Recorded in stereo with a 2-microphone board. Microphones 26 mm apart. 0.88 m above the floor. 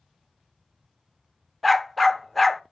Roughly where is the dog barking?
Centre.